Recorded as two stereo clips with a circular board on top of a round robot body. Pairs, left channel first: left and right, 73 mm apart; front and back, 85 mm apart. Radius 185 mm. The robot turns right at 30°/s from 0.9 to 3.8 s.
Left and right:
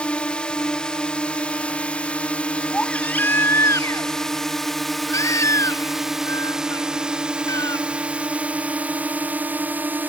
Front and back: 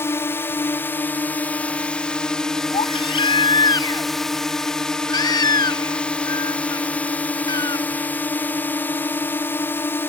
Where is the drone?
30° left; by 10.1 s 45° right.